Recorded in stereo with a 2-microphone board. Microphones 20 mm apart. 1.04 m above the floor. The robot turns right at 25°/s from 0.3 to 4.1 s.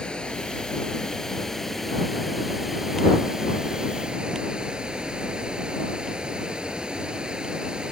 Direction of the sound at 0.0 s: 135° left.